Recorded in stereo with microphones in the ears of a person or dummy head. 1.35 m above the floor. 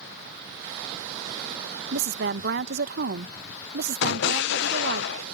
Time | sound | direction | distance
1.9 | a woman speaking | 60° right (ahead or behind) | ?
4.0 | an explosion | 70° left (ahead or behind) | ?